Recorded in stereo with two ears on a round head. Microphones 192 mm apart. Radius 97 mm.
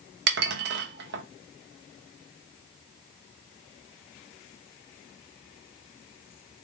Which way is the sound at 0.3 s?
50° right (ahead or behind).